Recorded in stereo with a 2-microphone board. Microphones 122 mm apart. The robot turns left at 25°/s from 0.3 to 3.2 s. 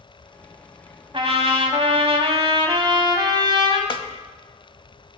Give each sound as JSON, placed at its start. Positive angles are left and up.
{"t": 1.1, "sound": "a trumpet", "azimuth_deg": -75, "distance_m": 0.9}
{"t": 3.9, "sound": "a snare drum", "side_deg": 45, "distance_m": 0.6}